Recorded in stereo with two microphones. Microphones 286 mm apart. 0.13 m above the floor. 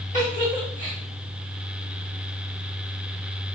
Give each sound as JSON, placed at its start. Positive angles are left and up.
{"t": 0.1, "sound": "a giggle", "side_deg": 25, "distance_m": 3.0}